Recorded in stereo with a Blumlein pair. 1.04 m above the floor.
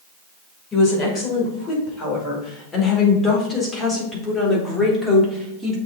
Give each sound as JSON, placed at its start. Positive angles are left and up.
{"t": 0.7, "sound": "a woman speaking", "azimuth_deg": 25, "distance_m": 5.0}